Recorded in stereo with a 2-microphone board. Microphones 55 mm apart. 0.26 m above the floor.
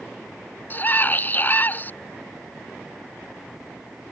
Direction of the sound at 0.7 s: 35° left (ahead or behind).